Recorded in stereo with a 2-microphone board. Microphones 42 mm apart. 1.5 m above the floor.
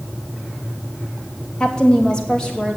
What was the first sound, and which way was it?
A woman speaking, 20° left (ahead or behind).